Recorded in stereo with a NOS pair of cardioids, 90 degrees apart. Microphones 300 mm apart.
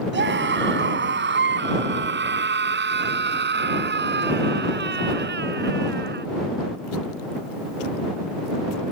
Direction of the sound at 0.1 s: 35° right.